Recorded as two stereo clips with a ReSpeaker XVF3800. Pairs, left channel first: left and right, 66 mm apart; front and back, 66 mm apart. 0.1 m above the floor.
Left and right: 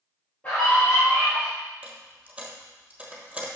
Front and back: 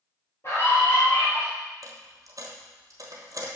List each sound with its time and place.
0.4 s a scream: 30° left, 2.5 m
1.8 s a dropped coin: 160° right, 1.0 m